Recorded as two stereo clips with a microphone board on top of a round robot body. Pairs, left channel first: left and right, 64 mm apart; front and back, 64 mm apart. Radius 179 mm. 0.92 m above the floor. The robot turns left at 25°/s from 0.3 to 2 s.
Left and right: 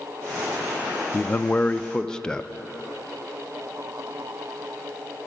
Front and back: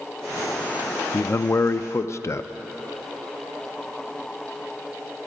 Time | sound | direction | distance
1.1 | a man speaking | 35° left | 0.5 m